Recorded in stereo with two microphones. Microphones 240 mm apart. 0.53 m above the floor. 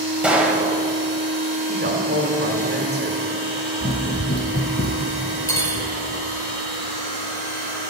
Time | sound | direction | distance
0.2 | a gunshot | 5° right (ahead or behind) | 1.4 m
1.7 | a woman speaking | 45° right (ahead or behind) | 1.9 m
3.8 | running footsteps | 15° left (ahead or behind) | 1.0 m
5.5 | cutlery clinking | 15° left (ahead or behind) | 1.3 m